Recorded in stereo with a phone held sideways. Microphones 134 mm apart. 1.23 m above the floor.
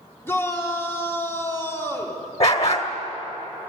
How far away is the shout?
About 3.5 m.